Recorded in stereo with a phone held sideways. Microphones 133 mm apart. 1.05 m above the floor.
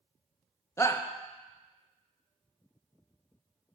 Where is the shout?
20° left (ahead or behind), 0.6 m.